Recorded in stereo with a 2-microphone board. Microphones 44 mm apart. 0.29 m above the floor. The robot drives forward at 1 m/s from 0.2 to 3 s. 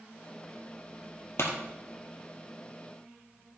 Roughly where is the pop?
Left.